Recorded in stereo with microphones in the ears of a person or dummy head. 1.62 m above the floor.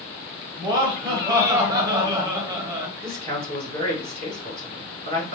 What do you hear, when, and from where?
0.6 s laughter: 30° right (ahead or behind), 1.7 m
3.0 s a man speaking: 50° right (ahead or behind), 3.5 m